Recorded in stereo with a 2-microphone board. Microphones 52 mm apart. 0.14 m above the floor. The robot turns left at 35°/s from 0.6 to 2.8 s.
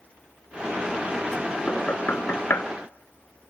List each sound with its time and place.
1.7 s knocking: 30° left (ahead or behind), 1.1 m; by 2.6 s 50° left (ahead or behind), 1.1 m